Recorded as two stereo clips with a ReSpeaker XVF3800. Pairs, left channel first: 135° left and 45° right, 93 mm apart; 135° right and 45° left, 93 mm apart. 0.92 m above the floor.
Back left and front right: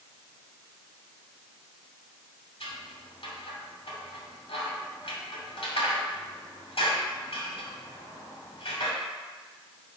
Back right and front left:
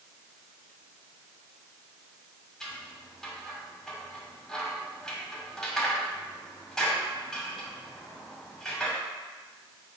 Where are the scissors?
140° left, 2.5 m.